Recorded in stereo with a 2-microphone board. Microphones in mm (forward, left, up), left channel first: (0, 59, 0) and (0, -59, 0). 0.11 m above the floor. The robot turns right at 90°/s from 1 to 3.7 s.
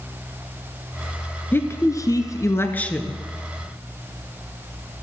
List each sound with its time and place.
1.5 s a woman speaking: 35° left, 1.2 m; by 3.2 s 170° right, 1.2 m